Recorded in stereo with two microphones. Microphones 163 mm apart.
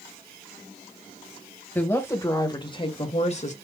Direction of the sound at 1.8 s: 10° left (ahead or behind).